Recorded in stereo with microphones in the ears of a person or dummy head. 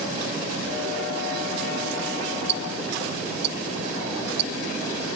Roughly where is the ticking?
Right.